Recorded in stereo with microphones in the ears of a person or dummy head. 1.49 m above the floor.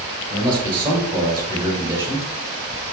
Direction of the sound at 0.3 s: 20° right (ahead or behind).